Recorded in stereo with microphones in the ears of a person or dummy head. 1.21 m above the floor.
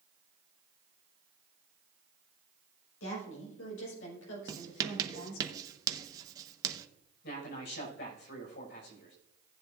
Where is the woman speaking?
85° left, 5.5 m; by 5.5 s 80° left, 3.5 m.